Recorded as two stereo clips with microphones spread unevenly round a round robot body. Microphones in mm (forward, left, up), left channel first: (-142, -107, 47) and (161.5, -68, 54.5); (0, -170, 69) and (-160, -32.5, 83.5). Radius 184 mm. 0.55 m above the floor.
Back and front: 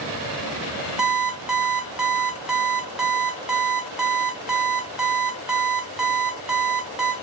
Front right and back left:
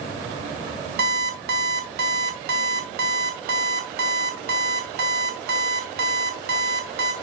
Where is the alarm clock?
95° left, 0.9 m.